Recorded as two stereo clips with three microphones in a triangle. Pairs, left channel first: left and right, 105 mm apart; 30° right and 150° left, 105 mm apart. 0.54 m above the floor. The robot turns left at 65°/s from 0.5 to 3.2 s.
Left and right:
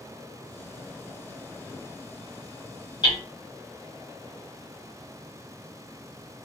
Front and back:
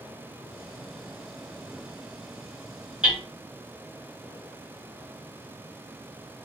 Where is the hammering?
75° left, 1.4 m; by 3.2 s 65° left, 1.4 m.